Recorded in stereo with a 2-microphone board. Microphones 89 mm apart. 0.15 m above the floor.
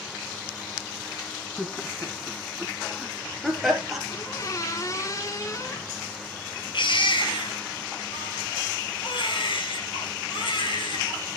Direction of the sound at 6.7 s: 65° left (ahead or behind).